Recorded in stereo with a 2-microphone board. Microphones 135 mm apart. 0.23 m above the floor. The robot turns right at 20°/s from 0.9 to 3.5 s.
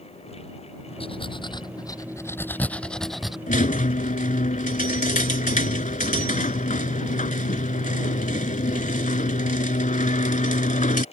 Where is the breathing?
135° left; by 3.4 s 175° right.